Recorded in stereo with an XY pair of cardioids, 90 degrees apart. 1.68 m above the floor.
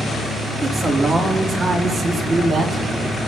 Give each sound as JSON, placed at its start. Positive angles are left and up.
{"t": 0.6, "sound": "a man speaking", "azimuth_deg": -55, "distance_m": 4.0}